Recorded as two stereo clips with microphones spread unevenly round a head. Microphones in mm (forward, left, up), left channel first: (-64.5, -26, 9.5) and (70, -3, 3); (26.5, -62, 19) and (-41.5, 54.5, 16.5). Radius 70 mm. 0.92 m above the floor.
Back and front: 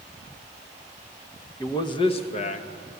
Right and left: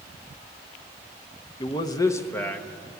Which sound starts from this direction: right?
A man speaking, at 1.6 s.